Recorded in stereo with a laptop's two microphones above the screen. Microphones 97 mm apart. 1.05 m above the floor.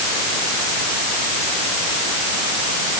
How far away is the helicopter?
No helicopter in this recording.